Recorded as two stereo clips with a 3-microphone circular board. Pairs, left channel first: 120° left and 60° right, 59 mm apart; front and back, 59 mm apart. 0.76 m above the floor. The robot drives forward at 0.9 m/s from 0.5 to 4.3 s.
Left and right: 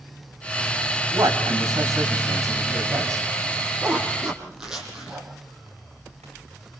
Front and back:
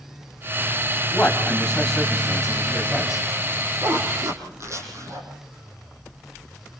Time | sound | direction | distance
1.1 | a man speaking | 75° right | 5.5 m
3.8 | a zipper | 135° right | 6.5 m